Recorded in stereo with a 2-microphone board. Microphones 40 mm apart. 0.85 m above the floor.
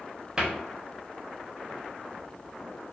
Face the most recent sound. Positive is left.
turn(degrees=-20)  # may be behind; listen again after turning